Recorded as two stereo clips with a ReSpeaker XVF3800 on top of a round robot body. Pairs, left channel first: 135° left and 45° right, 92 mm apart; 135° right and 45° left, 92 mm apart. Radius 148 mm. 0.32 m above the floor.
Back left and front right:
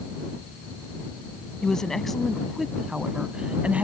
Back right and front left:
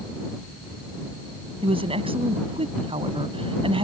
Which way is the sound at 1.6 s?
55° left.